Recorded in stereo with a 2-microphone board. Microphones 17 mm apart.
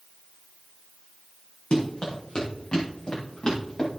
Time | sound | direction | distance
1.7 | running footsteps | 70° left (ahead or behind) | 3.5 m